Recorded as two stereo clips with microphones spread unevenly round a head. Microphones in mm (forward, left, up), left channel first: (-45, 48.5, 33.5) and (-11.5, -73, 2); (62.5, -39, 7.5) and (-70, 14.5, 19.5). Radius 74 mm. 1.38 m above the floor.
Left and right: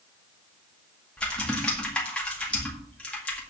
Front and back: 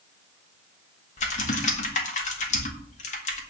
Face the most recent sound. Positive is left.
turn(degrees=25)